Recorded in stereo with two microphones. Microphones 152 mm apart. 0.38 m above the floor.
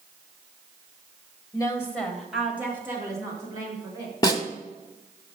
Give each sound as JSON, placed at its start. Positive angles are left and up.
{"t": 1.5, "sound": "a woman speaking", "side_deg": 30, "distance_m": 1.4}
{"t": 4.2, "sound": "a snare drum", "side_deg": 25, "distance_m": 1.1}